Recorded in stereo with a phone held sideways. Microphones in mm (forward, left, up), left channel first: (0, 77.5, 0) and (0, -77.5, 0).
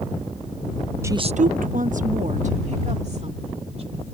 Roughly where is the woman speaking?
Centre.